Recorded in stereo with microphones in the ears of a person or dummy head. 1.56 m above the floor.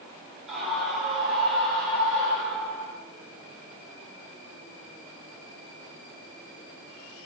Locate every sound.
0.5 s a scream: centre (ahead or behind), 10 m; by 3.0 s 5° left (ahead or behind), 8.5 m